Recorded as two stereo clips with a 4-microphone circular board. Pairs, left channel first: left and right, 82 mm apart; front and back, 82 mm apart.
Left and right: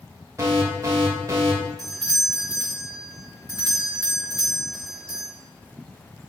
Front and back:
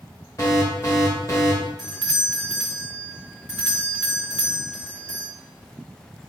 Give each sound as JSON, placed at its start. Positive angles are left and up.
{"t": 0.4, "sound": "an alarm", "azimuth_deg": -45, "distance_m": 2.5}
{"t": 1.8, "sound": "a doorbell", "azimuth_deg": -100, "distance_m": 2.0}